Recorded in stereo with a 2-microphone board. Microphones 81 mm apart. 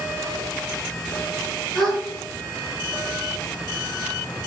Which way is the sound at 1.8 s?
10° left (ahead or behind).